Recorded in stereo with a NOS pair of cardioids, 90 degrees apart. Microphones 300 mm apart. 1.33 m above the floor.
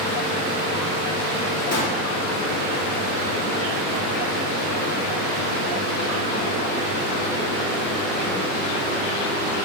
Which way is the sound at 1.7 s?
60° left.